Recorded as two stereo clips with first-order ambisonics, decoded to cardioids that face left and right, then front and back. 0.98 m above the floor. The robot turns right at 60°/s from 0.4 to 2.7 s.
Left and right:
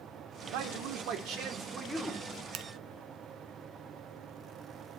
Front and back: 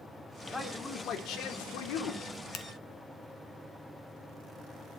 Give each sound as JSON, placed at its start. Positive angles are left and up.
{"t": 0.5, "sound": "a man speaking", "azimuth_deg": -90, "distance_m": 2.0}
{"t": 2.5, "sound": "a finger snap", "azimuth_deg": -45, "distance_m": 1.2}